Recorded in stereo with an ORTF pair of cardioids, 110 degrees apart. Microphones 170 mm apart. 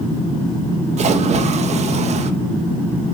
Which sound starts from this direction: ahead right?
A splash, at 1.0 s.